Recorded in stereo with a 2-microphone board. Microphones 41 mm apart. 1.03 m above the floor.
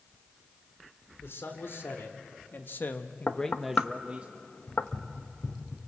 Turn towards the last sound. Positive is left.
turn(degrees=40)  # may be behind; listen again after turning